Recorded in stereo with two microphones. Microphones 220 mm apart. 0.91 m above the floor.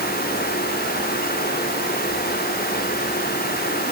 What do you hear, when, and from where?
Only background noise.